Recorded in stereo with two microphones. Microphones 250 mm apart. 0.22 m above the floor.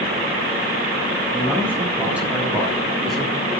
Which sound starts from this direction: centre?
A man speaking, at 1.3 s.